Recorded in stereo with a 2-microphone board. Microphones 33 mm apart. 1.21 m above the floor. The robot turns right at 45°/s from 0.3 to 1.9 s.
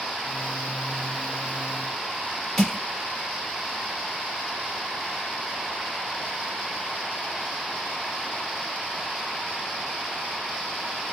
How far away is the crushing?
About 3.5 m.